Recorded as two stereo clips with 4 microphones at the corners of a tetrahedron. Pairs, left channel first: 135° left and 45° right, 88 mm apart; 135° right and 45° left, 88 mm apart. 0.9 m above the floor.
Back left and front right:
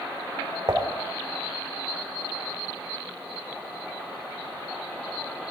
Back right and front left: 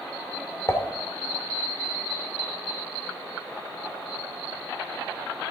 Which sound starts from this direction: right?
Dishes clattering, at 0.7 s.